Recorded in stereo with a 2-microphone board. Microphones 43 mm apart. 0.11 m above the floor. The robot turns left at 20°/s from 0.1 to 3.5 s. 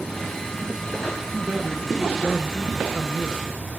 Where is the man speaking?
45° right, 1.7 m; by 3.5 s 90° right, 1.7 m.